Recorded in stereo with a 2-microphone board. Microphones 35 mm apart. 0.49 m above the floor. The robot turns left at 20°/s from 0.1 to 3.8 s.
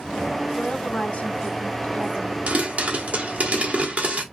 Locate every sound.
0.6 s a woman speaking: 100° left, 1.1 m; by 2.4 s 60° left, 1.1 m
2.5 s a pop: 45° right (ahead or behind), 1.4 m; by 4.2 s 40° right (ahead or behind), 1.4 m